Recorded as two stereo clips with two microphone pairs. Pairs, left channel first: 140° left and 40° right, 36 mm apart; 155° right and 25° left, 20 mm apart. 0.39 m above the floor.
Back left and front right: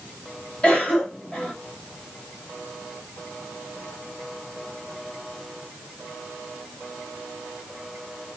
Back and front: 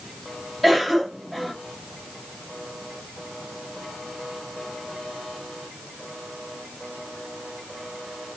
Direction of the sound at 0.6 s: 110° left.